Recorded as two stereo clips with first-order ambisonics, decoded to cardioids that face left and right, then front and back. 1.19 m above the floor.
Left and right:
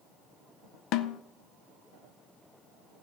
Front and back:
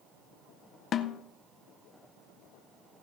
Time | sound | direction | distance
0.9 | a snare drum | 55° left | 0.6 m